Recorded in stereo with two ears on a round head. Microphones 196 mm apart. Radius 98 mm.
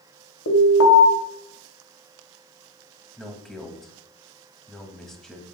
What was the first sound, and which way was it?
An alarm, 75° left (ahead or behind).